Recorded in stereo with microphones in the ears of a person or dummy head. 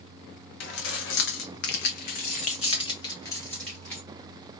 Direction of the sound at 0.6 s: 70° left (ahead or behind).